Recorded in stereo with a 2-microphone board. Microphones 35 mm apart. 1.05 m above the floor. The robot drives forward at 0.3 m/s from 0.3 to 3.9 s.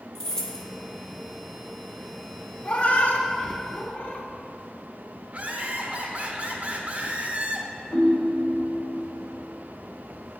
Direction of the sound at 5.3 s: 40° right (ahead or behind).